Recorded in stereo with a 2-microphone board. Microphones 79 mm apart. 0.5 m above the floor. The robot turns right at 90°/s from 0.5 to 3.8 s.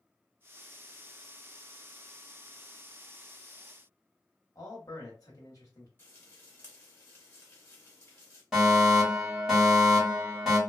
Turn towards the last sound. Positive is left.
turn(degrees=-5)  # may be behind; listen again after turning